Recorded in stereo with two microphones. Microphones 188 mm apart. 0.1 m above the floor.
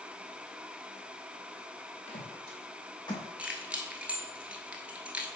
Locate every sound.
2.1 s footsteps: 40° left (ahead or behind), 3.5 m; by 3.2 s 20° left (ahead or behind), 3 m
3.4 s keys jangling: 5° right (ahead or behind), 0.9 m